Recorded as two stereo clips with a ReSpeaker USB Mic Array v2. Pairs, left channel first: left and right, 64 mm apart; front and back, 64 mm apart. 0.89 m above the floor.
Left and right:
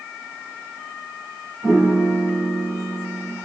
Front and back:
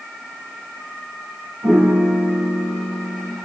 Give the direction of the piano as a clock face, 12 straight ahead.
5 o'clock.